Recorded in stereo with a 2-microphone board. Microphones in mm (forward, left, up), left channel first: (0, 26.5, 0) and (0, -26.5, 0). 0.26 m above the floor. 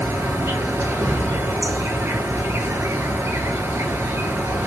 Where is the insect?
55° right (ahead or behind), 0.8 m.